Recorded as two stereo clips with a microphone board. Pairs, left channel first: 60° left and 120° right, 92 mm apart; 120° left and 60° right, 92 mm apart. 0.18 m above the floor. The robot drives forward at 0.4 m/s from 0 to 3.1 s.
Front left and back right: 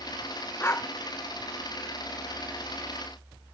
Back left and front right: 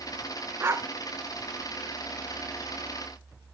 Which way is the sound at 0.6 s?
Straight ahead.